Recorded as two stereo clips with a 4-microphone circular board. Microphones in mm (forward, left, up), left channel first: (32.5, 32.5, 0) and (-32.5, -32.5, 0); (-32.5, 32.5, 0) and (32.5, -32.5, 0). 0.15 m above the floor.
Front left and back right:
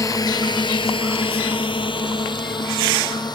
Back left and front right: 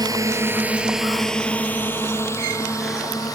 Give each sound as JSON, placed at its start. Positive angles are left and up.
{"t": 0.0, "sound": "a drone", "azimuth_deg": -5}